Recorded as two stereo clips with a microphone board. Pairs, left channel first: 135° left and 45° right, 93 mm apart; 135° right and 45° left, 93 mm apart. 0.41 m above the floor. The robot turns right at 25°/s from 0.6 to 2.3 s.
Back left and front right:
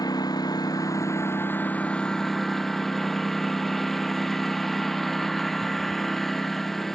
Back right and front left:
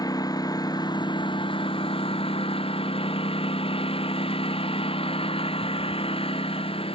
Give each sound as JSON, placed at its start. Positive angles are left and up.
{"t": 0.0, "sound": "a lawn mower", "azimuth_deg": 180}